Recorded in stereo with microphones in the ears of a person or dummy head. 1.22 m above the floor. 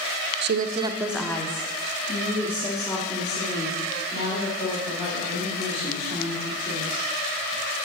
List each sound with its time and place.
0.4 s a woman speaking: 60° right (ahead or behind), 0.6 m; by 7.0 s 45° left (ahead or behind), 6 m